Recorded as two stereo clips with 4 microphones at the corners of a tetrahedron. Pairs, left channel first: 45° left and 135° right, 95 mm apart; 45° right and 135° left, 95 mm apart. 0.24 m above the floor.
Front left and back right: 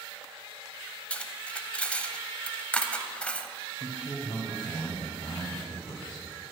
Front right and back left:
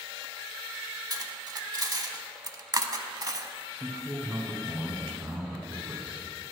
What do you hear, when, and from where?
1.1 s cutlery clinking: 120° left, 0.7 m
3.7 s a man speaking: 60° left, 2 m